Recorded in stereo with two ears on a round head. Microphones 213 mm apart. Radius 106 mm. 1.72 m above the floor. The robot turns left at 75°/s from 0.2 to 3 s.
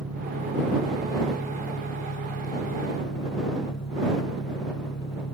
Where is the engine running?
100° right; by 5.3 s 50° left.